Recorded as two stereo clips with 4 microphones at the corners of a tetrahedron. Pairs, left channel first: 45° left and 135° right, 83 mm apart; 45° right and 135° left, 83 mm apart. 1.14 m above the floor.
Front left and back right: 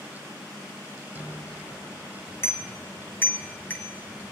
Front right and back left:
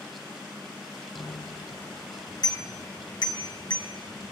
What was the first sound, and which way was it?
A bicycle bell, 5° right.